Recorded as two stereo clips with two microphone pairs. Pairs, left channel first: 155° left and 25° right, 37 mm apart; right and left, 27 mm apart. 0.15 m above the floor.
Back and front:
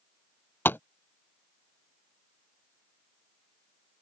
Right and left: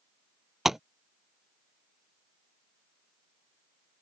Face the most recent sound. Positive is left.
turn(degrees=165)